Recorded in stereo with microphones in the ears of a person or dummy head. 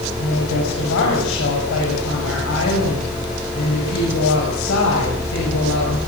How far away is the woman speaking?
About 7.5 m.